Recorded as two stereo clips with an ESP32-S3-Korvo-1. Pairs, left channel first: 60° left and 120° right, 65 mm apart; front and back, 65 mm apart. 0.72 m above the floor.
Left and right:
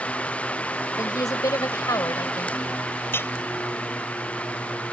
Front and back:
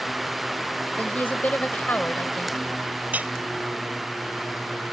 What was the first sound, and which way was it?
A woman speaking, 60° left.